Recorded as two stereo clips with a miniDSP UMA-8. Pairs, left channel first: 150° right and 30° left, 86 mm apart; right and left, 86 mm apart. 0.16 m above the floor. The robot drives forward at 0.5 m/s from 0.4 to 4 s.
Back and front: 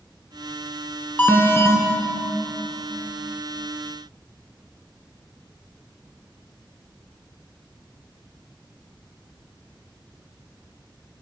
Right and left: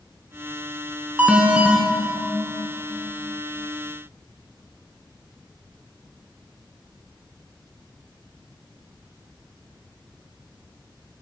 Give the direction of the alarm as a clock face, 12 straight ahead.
7 o'clock.